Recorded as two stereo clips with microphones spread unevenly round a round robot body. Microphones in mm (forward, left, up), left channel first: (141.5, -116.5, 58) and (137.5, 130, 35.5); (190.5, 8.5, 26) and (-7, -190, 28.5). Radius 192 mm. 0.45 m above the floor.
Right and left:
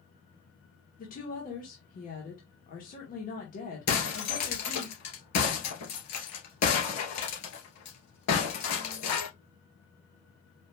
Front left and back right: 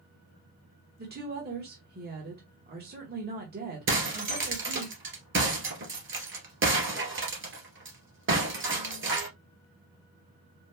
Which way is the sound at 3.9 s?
90° right.